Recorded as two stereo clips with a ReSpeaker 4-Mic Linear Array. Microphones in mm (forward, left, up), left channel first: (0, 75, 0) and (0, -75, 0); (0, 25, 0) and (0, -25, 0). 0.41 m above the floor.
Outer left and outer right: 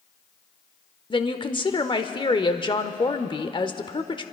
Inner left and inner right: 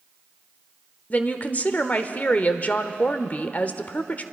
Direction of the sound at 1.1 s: 35° left (ahead or behind).